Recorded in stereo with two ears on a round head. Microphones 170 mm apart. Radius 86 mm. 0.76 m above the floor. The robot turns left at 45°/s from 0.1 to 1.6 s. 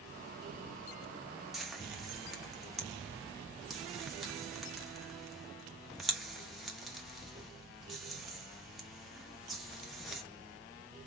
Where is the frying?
Centre (ahead or behind), 1.0 m.